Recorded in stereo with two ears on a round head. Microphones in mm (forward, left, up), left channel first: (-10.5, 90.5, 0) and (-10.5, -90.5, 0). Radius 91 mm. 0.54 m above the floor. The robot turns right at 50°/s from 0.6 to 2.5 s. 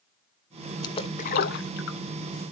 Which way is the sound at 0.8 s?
20° left (ahead or behind).